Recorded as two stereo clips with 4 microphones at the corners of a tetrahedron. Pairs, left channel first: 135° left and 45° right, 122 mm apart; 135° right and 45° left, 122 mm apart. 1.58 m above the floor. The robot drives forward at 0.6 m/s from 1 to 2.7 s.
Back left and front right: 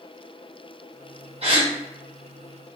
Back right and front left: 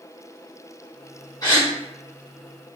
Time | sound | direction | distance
1.4 | a gasp | 80° right | 0.9 m